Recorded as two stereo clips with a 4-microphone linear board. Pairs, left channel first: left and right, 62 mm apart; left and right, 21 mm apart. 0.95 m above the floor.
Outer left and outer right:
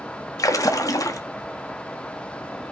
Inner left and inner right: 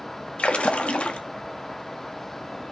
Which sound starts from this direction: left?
A splash, at 0.4 s.